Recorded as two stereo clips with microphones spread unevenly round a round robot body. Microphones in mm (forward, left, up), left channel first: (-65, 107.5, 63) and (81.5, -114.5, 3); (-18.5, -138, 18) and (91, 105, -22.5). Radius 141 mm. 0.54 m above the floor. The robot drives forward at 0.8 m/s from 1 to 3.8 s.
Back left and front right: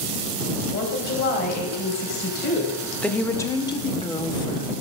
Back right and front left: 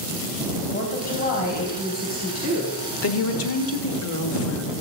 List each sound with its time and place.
0.7 s a woman speaking: straight behind, 3 m
3.0 s a woman speaking: 140° right, 1.1 m; by 4.7 s 155° right, 1.6 m